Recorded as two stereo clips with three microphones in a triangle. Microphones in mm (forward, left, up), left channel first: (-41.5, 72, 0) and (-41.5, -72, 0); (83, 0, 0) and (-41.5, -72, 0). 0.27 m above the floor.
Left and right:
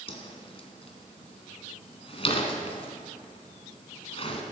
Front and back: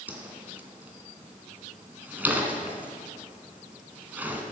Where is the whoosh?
135° left, 2 m.